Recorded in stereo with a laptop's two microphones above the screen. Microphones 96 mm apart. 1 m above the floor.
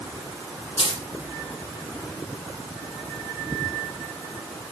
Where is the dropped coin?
75° left (ahead or behind), 4.5 m.